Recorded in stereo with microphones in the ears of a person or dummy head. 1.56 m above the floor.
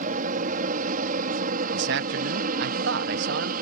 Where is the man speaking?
70° right (ahead or behind).